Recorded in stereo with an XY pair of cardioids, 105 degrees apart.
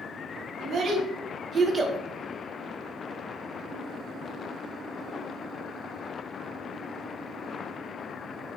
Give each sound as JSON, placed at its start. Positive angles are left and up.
{"t": 0.6, "sound": "a child speaking", "azimuth_deg": -60, "distance_m": 1.6}